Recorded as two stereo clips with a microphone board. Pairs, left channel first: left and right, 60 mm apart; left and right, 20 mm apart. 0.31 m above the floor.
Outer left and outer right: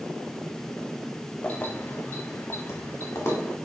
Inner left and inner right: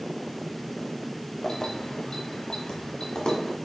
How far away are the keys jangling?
About 0.6 m.